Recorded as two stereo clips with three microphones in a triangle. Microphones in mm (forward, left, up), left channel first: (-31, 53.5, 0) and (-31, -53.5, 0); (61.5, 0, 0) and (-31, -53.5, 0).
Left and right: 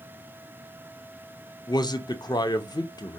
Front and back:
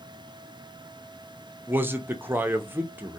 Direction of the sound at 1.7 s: 140° left.